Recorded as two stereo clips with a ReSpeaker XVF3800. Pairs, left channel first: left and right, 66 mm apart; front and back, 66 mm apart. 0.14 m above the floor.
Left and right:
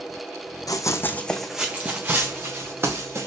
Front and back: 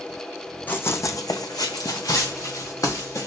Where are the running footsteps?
60° left, 0.5 m; by 3.3 s 40° right, 1.6 m.